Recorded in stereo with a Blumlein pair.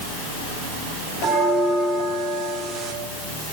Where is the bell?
25° right, 1.3 m.